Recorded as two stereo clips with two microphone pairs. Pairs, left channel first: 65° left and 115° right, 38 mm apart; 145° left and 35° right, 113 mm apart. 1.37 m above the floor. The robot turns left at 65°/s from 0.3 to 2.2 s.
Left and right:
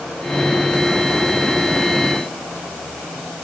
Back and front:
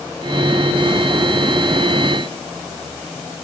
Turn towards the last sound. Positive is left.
No sound to turn to.